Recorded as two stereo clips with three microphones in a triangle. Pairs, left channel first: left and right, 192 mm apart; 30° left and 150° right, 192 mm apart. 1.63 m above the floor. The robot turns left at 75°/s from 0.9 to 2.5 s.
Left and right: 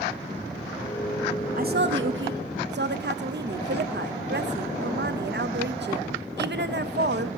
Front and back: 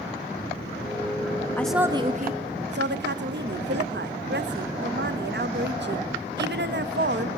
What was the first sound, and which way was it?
A woman speaking, 50° right.